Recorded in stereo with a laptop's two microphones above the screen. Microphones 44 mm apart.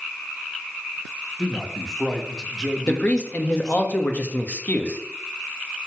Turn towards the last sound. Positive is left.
turn(degrees=35)  # may be behind; listen again after turning